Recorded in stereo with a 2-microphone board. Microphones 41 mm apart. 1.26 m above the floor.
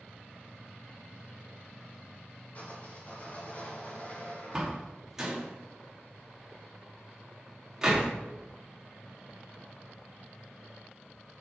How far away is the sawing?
About 3 m.